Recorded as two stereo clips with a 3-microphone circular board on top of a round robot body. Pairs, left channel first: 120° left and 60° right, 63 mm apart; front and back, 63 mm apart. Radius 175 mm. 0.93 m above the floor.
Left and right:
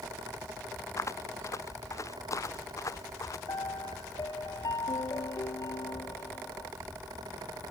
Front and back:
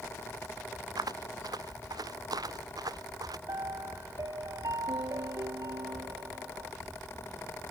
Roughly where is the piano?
Behind left.